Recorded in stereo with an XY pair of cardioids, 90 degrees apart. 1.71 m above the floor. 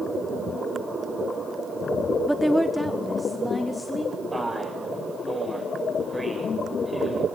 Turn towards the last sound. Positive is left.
turn(degrees=0)